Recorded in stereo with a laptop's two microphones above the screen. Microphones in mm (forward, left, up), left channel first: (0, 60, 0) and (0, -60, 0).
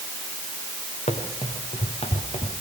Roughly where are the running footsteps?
Left.